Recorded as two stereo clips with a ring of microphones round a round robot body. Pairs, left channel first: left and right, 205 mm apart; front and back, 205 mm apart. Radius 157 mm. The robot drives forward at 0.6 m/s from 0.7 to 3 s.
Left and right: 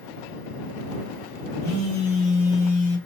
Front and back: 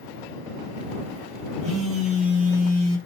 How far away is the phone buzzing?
About 1.1 m.